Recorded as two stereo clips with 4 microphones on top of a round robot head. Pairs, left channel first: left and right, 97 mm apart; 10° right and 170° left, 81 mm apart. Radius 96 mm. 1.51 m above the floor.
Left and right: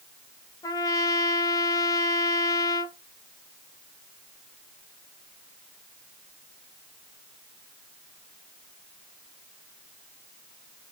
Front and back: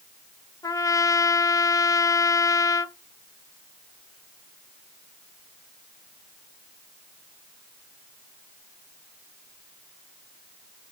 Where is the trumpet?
40° left, 0.6 m.